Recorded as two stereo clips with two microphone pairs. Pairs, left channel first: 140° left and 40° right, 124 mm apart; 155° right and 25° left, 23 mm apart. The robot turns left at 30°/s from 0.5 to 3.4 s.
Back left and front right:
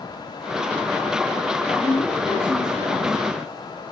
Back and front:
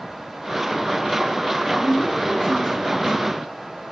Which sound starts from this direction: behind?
A woman speaking, at 1.8 s.